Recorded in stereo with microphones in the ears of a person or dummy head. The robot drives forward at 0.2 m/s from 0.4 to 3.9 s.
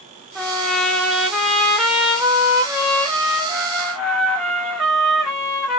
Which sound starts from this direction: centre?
A trumpet, at 0.3 s.